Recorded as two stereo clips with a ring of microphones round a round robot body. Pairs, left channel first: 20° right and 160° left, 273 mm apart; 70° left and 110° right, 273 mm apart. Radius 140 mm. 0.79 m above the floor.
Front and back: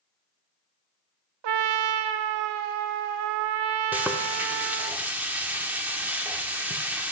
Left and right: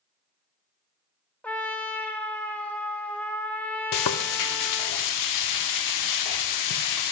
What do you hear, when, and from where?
1.4 s a trumpet: 155° left, 0.5 m
3.9 s frying: 75° left, 0.5 m